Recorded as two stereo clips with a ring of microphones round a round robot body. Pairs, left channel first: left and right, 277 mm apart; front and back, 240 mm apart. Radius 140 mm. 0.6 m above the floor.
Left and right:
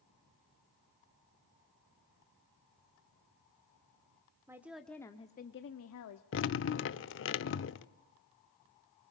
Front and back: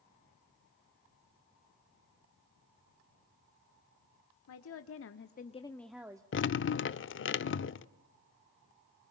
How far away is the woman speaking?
About 1.6 m.